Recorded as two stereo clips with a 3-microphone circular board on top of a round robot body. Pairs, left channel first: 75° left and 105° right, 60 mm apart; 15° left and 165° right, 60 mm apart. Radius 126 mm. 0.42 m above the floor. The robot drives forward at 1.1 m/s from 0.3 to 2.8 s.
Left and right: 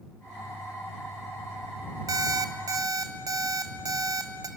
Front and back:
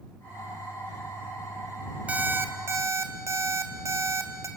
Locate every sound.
2.1 s an alarm clock: 100° right, 1.4 m; by 4.5 s 125° right, 1.7 m